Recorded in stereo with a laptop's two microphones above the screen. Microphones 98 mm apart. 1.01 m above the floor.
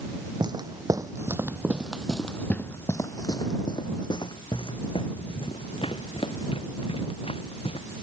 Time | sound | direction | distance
0.4 | footsteps | 45° right (ahead or behind) | ?